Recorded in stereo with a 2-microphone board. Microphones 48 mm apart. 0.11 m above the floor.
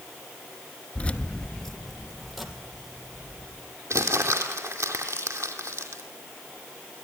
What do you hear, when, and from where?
0.9 s keys jangling: 30° left (ahead or behind), 0.9 m; by 3.7 s 10° right (ahead or behind), 4 m
3.9 s crumpling: 70° right (ahead or behind), 2.5 m